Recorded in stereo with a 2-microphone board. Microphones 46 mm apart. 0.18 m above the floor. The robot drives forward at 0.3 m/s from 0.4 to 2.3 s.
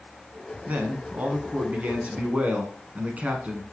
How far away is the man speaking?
About 1.3 m.